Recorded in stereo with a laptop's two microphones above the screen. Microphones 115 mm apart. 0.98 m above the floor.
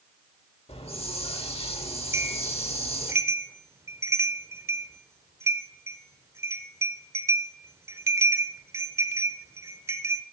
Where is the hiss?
60° left (ahead or behind), 1.0 m.